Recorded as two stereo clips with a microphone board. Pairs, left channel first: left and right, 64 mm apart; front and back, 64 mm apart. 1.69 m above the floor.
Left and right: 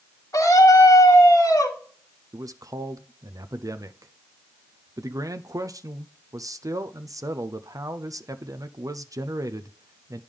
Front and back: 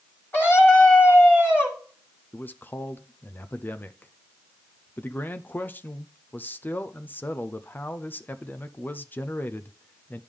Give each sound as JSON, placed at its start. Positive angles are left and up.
{"t": 0.3, "sound": "a scream", "azimuth_deg": 55, "distance_m": 3.0}
{"t": 2.3, "sound": "a man speaking", "azimuth_deg": -60, "distance_m": 0.6}